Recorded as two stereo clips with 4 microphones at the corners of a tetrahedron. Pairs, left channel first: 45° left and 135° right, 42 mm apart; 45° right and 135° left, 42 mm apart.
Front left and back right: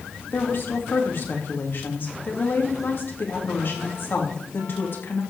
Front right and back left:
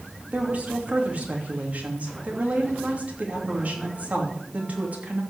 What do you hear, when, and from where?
0.3 s a woman speaking: 80° left, 3 m